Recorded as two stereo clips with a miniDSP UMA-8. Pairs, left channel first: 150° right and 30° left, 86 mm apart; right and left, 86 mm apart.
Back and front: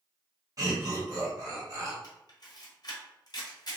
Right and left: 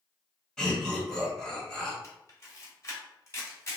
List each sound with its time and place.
0.6 s laughter: 5° right, 1.6 m
2.0 s a camera shutter: 140° right, 1.2 m